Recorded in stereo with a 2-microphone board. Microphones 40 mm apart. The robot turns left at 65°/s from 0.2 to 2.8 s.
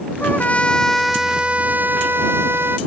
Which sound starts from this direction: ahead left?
A trumpet, at 0.2 s.